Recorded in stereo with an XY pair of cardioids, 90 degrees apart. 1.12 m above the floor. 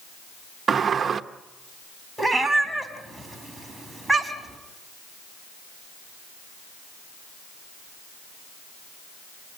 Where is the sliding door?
50° right, 1.0 m.